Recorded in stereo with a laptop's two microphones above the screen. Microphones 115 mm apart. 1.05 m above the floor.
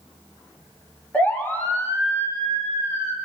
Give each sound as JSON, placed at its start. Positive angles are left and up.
{"t": 1.1, "sound": "a siren", "side_deg": 15, "distance_m": 3.0}